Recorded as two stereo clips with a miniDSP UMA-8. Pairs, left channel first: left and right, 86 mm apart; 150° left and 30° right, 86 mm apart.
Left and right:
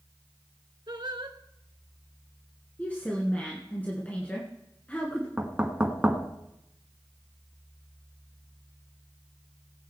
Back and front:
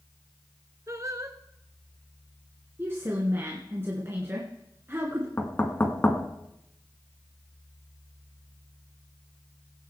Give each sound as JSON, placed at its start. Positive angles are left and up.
{"t": 0.9, "sound": "singing", "azimuth_deg": -75, "distance_m": 1.1}
{"t": 2.8, "sound": "a woman speaking", "azimuth_deg": 25, "distance_m": 2.0}
{"t": 5.4, "sound": "knocking", "azimuth_deg": -155, "distance_m": 1.4}